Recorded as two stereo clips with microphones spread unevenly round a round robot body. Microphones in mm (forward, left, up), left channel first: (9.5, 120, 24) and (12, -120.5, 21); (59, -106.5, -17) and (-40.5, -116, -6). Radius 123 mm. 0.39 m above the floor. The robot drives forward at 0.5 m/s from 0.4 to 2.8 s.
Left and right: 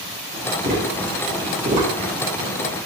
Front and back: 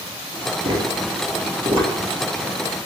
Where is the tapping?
145° right, 1.9 m; by 1.9 s 150° right, 2.5 m.